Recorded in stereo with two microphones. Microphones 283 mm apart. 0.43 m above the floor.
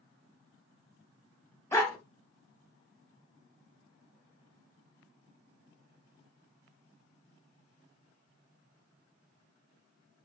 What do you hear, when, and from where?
1.7 s a dog barking: 10° left (ahead or behind), 0.7 m